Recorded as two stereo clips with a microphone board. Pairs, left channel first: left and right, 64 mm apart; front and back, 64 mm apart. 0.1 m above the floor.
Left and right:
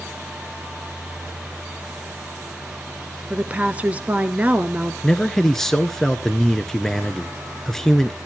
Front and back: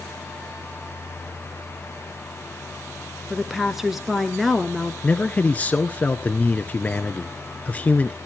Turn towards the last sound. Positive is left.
turn(degrees=15)